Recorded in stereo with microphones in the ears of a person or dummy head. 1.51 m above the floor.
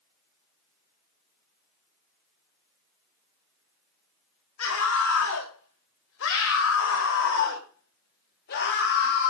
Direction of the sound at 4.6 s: 70° left (ahead or behind).